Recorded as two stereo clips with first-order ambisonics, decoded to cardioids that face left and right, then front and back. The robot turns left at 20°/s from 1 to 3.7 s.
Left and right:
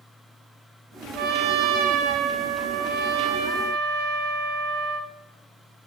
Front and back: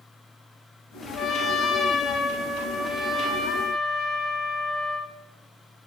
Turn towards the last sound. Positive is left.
turn(degrees=-105)